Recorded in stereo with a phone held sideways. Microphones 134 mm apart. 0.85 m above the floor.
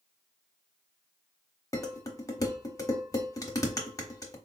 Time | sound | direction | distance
1.7 | dishes clattering | 25° left (ahead or behind) | 0.8 m